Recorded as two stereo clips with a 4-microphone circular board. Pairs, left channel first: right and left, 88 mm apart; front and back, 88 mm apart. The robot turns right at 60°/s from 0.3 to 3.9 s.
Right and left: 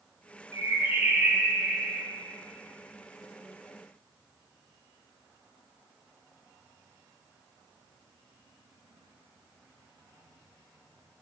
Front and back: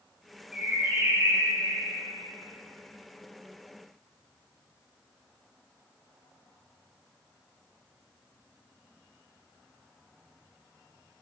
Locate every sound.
0.5 s a bird: 100° left, 2 m; by 2.0 s 170° right, 2 m